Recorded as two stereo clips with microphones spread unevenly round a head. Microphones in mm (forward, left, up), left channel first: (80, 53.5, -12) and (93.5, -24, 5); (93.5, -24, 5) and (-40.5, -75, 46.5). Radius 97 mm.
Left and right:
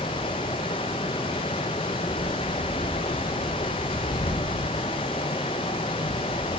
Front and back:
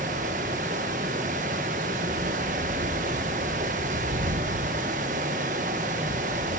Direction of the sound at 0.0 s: 150° left.